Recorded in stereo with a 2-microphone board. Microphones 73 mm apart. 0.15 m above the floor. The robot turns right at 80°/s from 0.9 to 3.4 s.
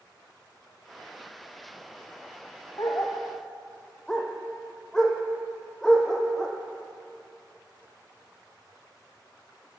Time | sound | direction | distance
2.8 | a dog barking | 55° left (ahead or behind) | 1.7 m